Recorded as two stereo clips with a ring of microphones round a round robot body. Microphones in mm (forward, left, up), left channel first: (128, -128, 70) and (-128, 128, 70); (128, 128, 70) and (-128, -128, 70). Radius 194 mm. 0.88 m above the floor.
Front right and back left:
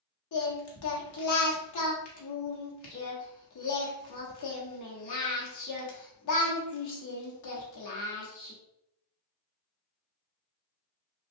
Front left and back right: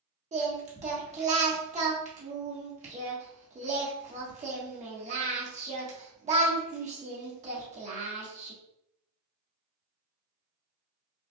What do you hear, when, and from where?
0.3 s singing: 70° right, 1.2 m